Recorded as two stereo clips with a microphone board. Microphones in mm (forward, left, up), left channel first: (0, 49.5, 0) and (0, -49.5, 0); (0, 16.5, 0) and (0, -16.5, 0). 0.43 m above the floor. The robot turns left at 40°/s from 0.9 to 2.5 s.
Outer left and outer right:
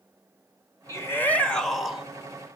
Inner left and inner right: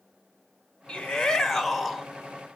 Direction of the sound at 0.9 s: 35° left.